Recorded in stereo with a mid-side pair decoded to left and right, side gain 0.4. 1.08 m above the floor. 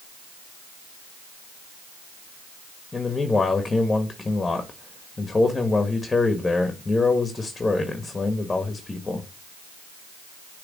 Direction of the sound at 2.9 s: 25° left.